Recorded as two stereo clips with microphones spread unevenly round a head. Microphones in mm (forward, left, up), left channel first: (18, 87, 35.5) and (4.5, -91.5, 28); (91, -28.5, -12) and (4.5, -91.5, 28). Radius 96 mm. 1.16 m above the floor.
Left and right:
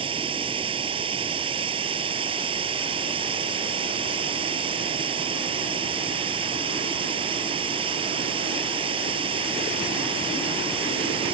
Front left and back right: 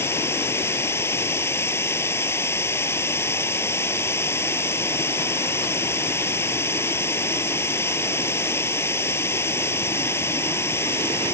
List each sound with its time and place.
0.0 s running water: 30° right